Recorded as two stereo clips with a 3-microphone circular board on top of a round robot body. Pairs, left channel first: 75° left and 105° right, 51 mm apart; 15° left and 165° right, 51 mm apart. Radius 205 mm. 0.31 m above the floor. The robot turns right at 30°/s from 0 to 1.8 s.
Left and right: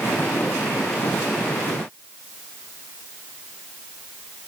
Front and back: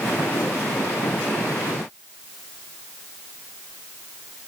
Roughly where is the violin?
I don't hear a violin.